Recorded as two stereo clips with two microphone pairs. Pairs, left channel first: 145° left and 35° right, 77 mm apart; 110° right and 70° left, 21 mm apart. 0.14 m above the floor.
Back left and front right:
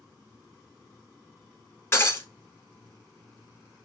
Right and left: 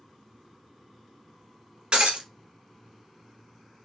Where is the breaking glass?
90° left, 1.5 m.